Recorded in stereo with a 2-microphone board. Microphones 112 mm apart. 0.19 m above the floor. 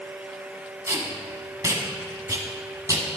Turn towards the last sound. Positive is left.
turn(degrees=-30)  # may be behind; listen again after turning